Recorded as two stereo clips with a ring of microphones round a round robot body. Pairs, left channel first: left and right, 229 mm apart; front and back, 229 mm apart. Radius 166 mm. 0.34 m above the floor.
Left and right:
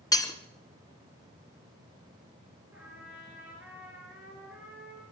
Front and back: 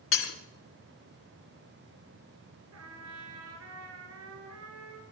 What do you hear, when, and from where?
0.1 s breaking glass: 15° left, 3 m
2.7 s a trumpet: 175° right, 3.5 m